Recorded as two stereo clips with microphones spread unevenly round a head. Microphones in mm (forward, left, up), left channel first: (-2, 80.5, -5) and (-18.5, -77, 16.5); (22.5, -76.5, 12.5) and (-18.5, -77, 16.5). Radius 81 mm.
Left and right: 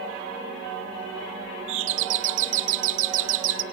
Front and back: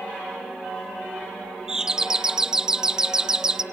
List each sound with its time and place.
1.7 s a doorbell: 105° right, 1.3 m